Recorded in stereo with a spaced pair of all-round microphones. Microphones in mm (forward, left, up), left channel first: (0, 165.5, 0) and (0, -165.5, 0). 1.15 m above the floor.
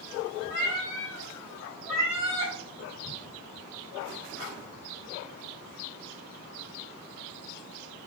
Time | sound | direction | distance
0.5 | a cat meowing | 30° left (ahead or behind) | 1.3 m